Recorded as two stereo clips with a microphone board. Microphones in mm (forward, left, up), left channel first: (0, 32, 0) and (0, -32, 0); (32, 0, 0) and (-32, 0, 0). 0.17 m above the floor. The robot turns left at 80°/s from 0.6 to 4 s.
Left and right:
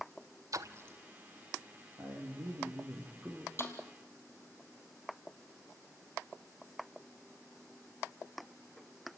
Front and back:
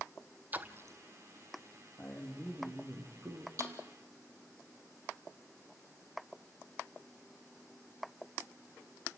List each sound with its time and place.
0.5 s a splash: 120° right, 1.0 m; by 1.0 s 150° right, 1.0 m
2.0 s a man speaking: 50° right, 5.5 m; by 3.5 s 175° right, 5.5 m
3.6 s a snare drum: 140° left, 3.5 m; by 3.8 s 125° left, 3.5 m